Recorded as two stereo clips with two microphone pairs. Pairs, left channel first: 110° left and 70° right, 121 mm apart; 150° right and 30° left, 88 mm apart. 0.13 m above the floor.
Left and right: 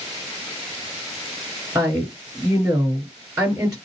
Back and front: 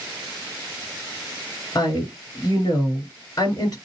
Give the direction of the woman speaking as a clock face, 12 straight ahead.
4 o'clock.